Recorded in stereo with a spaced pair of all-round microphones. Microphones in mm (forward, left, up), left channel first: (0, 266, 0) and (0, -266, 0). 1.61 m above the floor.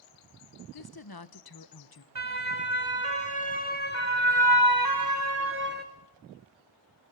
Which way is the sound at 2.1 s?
80° right.